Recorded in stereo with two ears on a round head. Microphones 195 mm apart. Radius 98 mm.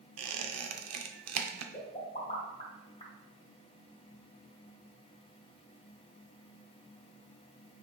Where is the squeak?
80° right, 0.6 m.